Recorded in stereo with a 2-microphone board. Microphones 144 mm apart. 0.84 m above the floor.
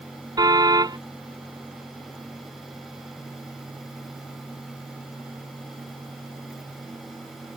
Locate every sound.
0.4 s a car horn: 25° right (ahead or behind)